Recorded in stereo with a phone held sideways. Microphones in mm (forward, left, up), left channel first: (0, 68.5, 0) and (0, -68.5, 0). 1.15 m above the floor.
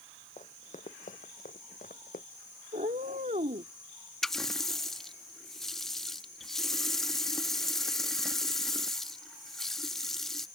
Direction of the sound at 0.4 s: 55° left (ahead or behind).